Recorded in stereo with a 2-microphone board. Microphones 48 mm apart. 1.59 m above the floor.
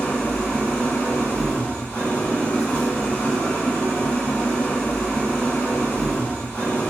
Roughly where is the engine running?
Left.